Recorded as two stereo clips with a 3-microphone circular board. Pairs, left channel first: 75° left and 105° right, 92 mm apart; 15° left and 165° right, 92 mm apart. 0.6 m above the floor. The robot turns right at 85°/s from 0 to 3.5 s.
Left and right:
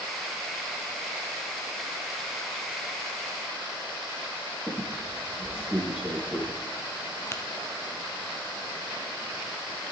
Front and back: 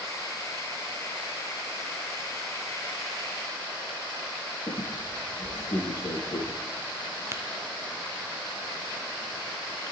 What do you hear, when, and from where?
4.7 s a squeak: 30° right, 5 m
7.3 s tapping: 135° left, 1.3 m